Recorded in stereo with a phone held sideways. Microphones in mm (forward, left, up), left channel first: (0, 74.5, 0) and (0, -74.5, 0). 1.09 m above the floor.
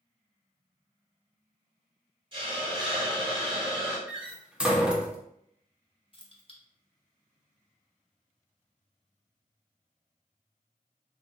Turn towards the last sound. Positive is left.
turn(degrees=40)  # may be behind; listen again after turning